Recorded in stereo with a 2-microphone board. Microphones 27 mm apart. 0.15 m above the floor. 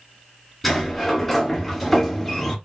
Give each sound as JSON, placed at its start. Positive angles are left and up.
{"t": 0.6, "sound": "a sliding door", "side_deg": 0, "distance_m": 1.6}